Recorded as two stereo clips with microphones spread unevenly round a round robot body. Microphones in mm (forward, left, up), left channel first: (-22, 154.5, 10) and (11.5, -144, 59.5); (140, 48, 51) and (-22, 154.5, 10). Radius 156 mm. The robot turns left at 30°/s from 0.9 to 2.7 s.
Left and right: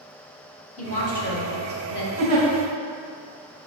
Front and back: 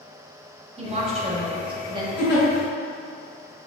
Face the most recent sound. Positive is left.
turn(degrees=-25)